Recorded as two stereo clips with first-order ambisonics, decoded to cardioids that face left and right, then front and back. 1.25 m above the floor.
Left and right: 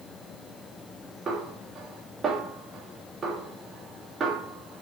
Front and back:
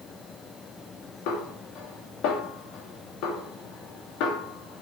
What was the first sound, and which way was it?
A snare drum, 25° right.